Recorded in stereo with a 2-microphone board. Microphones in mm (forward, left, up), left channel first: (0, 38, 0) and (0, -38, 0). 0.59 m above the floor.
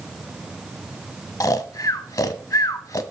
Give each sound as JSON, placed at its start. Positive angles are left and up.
{"t": 1.4, "sound": "snoring", "side_deg": 45, "distance_m": 0.6}